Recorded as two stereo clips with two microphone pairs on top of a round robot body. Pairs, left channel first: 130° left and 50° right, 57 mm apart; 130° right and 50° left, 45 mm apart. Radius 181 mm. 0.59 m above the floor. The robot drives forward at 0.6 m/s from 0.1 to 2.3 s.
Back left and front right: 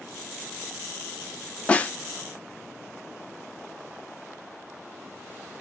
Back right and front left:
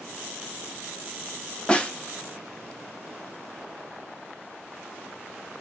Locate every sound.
1.7 s a snare drum: 145° left, 0.9 m; by 1.9 s 155° left, 1.0 m